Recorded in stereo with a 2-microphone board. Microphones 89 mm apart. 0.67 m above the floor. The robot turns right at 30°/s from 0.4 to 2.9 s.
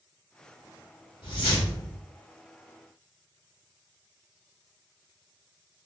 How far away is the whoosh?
About 1.5 m.